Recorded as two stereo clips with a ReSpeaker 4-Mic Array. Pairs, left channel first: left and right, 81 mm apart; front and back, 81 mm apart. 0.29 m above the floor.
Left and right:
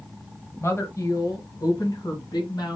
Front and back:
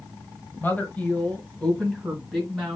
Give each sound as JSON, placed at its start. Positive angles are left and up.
{"t": 0.6, "sound": "a woman speaking", "azimuth_deg": 55, "distance_m": 1.2}